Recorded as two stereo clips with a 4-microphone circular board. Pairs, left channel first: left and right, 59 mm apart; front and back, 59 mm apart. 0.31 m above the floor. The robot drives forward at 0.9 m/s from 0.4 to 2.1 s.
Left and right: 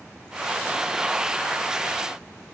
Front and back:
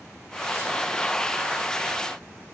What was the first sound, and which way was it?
Only background noise.